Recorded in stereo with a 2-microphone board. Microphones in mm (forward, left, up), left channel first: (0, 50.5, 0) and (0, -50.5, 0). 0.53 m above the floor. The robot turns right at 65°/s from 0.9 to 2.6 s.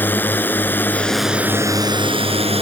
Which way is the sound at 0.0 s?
160° left.